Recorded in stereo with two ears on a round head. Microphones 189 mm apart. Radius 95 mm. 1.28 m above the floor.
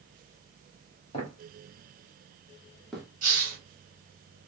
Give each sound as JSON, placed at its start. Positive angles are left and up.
{"t": 1.1, "sound": "footsteps", "side_deg": 25, "distance_m": 1.5}
{"t": 3.2, "sound": "a hiss", "side_deg": -40, "distance_m": 1.5}